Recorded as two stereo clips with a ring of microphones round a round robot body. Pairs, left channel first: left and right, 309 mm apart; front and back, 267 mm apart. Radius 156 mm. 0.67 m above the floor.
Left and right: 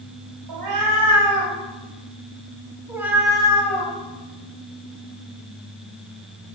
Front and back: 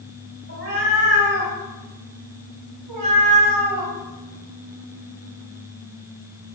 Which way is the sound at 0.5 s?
120° right.